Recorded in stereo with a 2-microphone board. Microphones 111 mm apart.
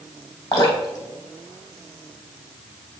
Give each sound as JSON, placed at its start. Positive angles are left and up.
{"t": 0.5, "sound": "dripping", "side_deg": 40, "distance_m": 2.5}